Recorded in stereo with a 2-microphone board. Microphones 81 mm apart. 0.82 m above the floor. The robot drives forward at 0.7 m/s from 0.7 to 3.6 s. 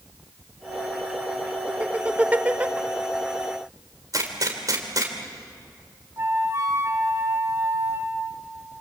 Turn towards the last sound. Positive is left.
turn(degrees=-40)  # may be behind; listen again after turning